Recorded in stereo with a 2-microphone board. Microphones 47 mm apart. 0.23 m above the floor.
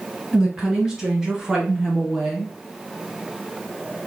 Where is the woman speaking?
15° right (ahead or behind), 2 m; by 2.5 s 5° right (ahead or behind), 1.0 m.